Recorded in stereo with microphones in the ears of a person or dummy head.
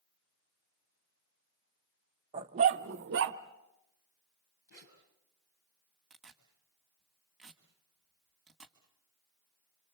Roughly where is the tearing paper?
Centre.